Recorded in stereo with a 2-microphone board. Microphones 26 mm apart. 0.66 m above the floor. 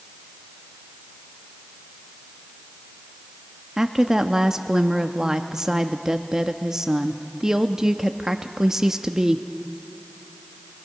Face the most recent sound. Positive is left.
turn(degrees=-25)  # may be behind; listen again after turning